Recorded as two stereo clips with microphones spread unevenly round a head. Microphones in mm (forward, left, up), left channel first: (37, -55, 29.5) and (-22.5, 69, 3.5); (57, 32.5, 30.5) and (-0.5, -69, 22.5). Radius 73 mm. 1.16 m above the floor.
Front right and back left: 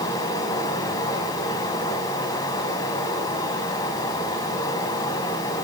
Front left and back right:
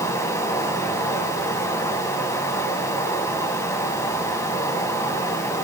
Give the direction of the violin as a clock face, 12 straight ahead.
I don't hear a violin.